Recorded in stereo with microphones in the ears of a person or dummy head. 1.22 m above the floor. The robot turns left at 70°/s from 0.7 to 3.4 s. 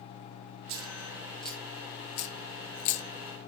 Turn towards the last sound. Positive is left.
turn(degrees=20)  # may be behind; listen again after turning